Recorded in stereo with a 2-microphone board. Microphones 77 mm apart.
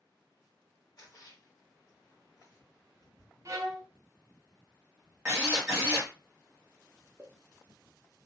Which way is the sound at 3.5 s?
40° right (ahead or behind).